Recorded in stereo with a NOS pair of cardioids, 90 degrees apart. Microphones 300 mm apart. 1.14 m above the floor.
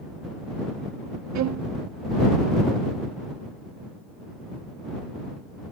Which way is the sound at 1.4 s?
60° right.